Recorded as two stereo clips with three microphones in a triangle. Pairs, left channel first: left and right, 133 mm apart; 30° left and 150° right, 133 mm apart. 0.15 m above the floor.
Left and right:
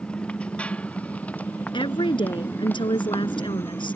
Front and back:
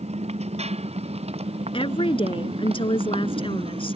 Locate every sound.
0.0 s a motorcycle: 170° left; by 4.0 s 165° left
1.7 s a woman speaking: 55° left